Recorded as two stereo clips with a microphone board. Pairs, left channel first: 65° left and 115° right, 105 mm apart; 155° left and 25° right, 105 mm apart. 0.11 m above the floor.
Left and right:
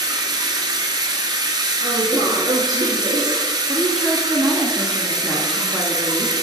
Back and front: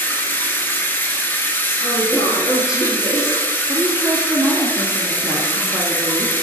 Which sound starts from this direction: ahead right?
A woman speaking, at 3.7 s.